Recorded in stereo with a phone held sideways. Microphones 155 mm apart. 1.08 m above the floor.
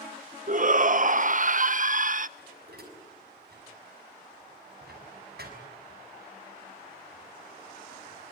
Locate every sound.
0.5 s a shout: 55° right (ahead or behind), 0.7 m
2.4 s dishes clattering: 75° right (ahead or behind), 6 m